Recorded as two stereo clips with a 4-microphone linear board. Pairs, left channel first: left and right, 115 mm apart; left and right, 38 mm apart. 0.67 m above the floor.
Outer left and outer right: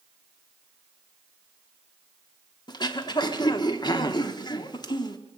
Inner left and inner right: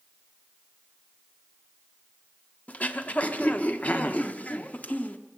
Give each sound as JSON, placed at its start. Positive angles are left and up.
{"t": 2.7, "sound": "throat clearing", "side_deg": 35, "distance_m": 1.0}